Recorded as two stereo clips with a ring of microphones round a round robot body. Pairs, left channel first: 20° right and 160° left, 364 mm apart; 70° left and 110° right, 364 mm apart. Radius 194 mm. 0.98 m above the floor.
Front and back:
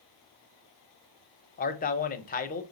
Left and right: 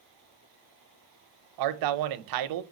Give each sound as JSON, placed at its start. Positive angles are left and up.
{"t": 1.6, "sound": "a man speaking", "azimuth_deg": -90, "distance_m": 0.7}